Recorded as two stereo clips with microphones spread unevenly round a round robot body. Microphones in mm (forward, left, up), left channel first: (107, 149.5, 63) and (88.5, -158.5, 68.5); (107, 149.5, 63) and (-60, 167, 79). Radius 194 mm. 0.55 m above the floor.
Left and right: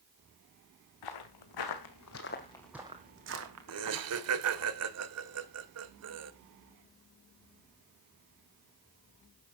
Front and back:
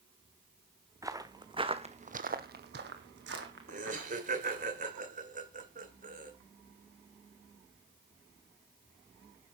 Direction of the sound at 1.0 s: 105° left.